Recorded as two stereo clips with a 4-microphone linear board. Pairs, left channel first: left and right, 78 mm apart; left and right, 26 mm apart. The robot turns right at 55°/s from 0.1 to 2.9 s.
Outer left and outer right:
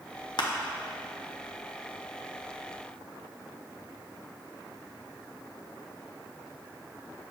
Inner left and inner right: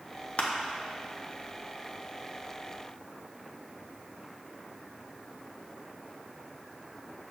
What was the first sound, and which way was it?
Crushing, 60° left (ahead or behind).